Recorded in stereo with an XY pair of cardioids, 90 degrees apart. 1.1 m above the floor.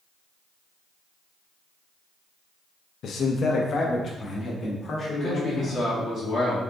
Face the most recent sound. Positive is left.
turn(degrees=65)